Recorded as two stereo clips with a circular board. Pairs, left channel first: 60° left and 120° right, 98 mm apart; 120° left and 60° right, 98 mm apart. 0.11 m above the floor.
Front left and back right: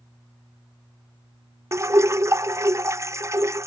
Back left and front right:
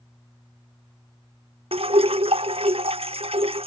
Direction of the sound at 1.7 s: 60° right.